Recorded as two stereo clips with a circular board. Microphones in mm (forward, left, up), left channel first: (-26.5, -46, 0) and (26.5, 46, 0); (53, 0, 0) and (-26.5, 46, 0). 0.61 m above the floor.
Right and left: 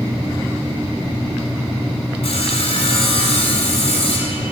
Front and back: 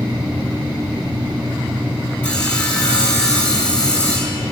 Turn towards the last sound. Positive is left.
turn(degrees=-105)